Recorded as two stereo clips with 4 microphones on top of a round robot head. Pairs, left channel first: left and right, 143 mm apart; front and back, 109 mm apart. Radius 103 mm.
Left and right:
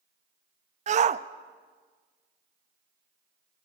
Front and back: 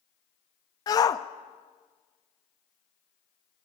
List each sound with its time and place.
0.9 s a shout: 55° right, 0.8 m